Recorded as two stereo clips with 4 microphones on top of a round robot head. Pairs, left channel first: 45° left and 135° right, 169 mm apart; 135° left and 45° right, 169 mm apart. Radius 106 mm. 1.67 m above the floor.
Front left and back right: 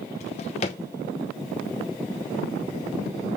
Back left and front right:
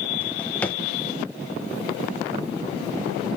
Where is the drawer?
60° left, 0.8 m.